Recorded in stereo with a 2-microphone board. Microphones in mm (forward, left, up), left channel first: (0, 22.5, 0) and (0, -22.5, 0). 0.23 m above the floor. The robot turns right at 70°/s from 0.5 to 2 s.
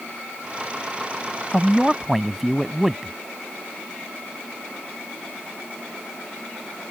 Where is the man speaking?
150° left; by 3.1 s 175° right.